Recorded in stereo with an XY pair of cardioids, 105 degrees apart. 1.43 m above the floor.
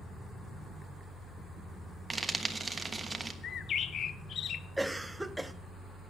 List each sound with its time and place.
2.1 s frying: 25° right, 1.3 m
3.4 s a bird: 60° left, 0.6 m
4.8 s a cough: 10° right, 1.0 m